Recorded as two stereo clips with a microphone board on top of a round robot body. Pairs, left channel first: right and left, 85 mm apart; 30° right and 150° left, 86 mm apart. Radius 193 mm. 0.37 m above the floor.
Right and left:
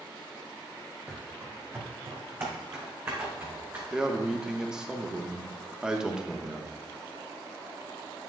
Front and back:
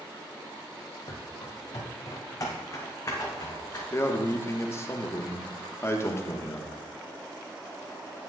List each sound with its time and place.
1.1 s running footsteps: 15° left, 0.6 m; by 3.8 s 30° left, 2.0 m
3.9 s a man speaking: 10° left, 1.2 m